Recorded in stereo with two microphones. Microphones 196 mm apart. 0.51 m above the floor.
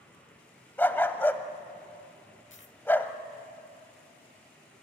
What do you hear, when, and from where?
0.8 s a dog barking: 10° left (ahead or behind), 0.8 m
2.5 s a dropped coin: 80° left, 0.7 m